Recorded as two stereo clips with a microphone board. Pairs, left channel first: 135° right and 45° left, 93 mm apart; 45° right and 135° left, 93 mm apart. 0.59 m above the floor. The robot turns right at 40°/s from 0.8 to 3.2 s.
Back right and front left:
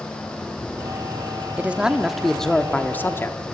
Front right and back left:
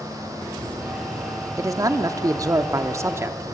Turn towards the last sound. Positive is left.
turn(degrees=175)